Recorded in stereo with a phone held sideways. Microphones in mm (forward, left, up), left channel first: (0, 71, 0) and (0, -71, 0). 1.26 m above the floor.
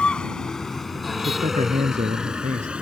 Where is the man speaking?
60° right (ahead or behind).